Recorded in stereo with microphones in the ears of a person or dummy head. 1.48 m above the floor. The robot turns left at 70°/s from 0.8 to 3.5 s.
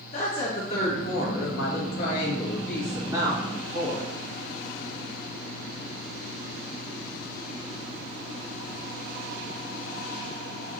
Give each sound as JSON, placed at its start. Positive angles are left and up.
{"t": 0.1, "sound": "a woman speaking", "azimuth_deg": 145, "distance_m": 1.7}